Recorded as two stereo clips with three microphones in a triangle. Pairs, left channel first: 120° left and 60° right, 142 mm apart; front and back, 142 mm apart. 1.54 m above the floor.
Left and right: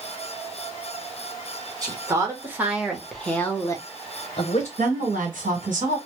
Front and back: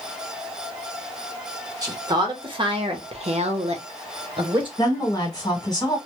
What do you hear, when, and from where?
1.8 s a woman speaking: 120° right, 1.2 m; by 4.7 s 135° left, 0.9 m
4.8 s a woman speaking: 60° right, 1.3 m